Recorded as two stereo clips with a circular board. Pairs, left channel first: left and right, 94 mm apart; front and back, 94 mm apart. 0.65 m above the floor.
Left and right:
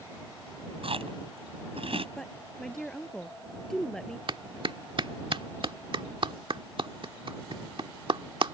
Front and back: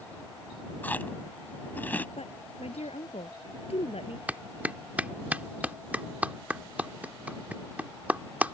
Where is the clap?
110° right.